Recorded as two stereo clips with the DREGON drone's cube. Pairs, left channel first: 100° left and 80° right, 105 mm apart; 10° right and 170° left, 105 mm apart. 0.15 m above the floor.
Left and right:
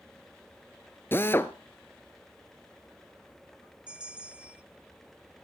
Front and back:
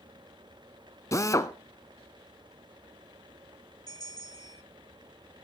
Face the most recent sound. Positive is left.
turn(degrees=-5)